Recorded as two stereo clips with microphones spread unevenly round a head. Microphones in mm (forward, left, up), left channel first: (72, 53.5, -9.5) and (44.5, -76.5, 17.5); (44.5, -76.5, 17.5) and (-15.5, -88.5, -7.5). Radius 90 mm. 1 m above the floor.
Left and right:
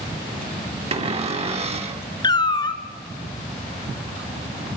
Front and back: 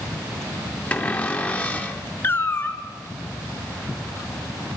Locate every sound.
0.9 s a cupboard door: 60° right, 2.5 m
2.2 s a cat meowing: 20° left, 1.4 m